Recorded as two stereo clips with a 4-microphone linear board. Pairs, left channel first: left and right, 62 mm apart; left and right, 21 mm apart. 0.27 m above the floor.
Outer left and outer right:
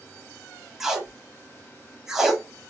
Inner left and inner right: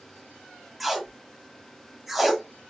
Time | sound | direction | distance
0.8 | tape being pulled | 5° right (ahead or behind) | 0.6 m